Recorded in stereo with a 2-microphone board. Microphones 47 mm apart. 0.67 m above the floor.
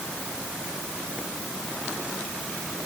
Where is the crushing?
No crushing in this recording.